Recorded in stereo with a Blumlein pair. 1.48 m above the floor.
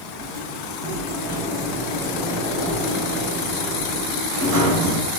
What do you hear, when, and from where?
0.2 s a sliding door: 35° right, 1.9 m